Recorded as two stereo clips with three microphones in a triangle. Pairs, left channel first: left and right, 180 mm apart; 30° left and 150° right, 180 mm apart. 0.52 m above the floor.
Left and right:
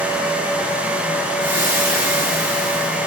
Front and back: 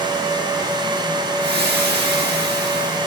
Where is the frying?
165° right, 6.5 m.